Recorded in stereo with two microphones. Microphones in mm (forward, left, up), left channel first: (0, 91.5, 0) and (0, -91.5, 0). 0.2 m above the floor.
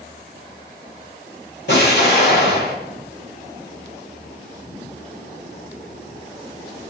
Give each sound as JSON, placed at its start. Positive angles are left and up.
{"t": 1.7, "sound": "an explosion", "side_deg": 75, "distance_m": 6.0}